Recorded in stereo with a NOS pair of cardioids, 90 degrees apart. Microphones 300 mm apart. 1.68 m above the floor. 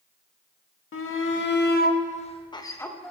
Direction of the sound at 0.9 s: 45° left.